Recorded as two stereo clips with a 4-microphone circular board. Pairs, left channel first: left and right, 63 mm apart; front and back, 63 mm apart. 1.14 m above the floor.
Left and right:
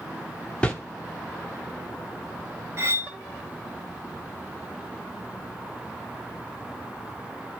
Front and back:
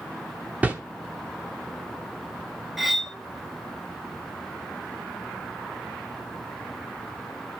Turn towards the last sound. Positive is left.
turn(degrees=-95)